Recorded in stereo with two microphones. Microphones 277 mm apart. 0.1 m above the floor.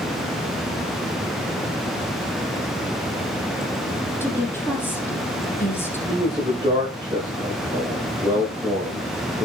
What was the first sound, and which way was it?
A woman speaking, 10° left (ahead or behind).